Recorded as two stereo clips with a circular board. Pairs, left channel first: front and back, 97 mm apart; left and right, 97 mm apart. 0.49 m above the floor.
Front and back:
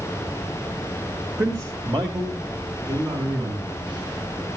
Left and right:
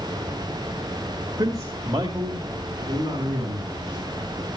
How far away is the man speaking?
About 1.7 m.